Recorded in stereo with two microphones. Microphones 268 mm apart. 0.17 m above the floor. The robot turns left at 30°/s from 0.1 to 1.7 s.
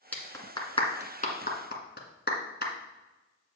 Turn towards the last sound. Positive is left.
turn(degrees=40)  # may be behind; listen again after turning